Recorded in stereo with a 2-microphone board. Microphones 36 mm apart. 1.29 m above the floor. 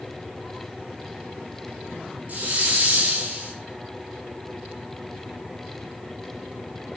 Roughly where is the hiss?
Right.